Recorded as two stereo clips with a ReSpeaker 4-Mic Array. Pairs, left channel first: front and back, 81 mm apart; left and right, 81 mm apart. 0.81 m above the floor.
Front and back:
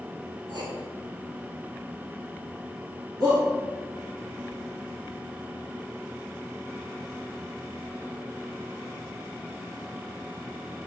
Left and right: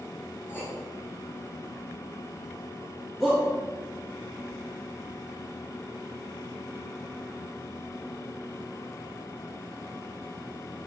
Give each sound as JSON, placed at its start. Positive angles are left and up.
{"t": 0.5, "sound": "writing", "azimuth_deg": 155, "distance_m": 2.5}
{"t": 3.2, "sound": "a shout", "azimuth_deg": 175, "distance_m": 2.0}